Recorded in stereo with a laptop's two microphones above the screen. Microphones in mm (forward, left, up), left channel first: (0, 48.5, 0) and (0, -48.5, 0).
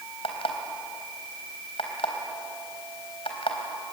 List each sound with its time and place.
0.2 s an alarm clock: 80° left, 3.5 m